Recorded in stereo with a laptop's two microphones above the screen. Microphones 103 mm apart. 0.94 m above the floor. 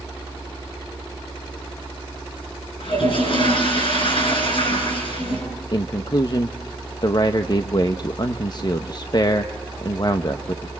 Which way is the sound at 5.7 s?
40° left (ahead or behind).